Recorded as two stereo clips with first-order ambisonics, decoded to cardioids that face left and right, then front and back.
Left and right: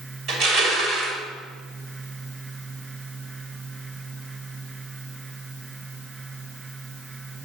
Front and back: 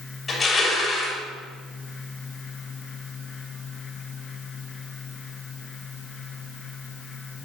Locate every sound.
0.3 s crushing: 70° right, 2 m